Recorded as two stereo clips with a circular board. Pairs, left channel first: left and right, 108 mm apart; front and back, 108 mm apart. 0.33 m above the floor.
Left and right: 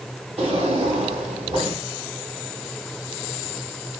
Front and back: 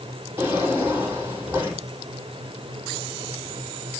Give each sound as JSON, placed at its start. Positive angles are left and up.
{"t": 0.4, "sound": "a drawer", "azimuth_deg": -110, "distance_m": 7.0}